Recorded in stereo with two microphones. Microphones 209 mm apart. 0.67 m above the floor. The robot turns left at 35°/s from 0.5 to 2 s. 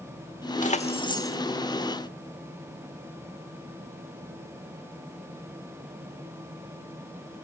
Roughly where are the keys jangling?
Left.